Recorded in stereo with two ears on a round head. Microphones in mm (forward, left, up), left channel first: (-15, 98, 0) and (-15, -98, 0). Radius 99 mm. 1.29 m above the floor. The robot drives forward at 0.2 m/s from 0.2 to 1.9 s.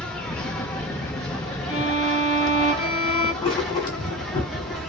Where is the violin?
25° left (ahead or behind), 1.2 m.